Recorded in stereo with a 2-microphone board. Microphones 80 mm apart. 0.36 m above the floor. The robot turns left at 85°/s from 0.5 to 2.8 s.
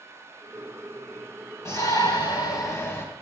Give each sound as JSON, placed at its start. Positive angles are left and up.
{"t": 1.6, "sound": "a shout", "azimuth_deg": 140, "distance_m": 3.0}